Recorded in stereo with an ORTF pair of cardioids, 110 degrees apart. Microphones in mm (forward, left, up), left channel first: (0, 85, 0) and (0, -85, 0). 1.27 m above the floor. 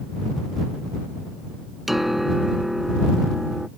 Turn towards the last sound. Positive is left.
turn(degrees=0)